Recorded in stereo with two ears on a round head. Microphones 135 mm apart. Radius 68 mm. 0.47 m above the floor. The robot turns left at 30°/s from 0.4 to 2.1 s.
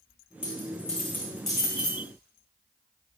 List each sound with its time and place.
0.4 s a dropped coin: 35° left (ahead or behind), 4 m; by 2.0 s 15° right (ahead or behind), 4 m